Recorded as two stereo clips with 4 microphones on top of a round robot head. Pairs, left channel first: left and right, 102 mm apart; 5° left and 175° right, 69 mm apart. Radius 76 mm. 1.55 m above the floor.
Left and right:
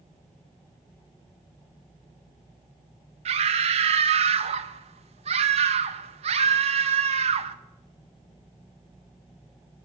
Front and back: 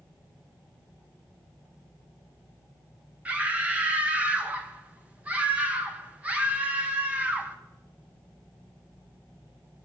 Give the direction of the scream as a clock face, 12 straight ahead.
3 o'clock.